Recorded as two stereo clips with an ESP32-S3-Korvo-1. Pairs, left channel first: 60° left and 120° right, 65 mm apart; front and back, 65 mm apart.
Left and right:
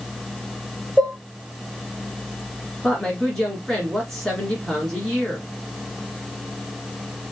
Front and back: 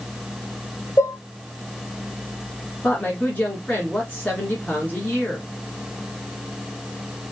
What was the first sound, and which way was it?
Dishes clattering, 10° right.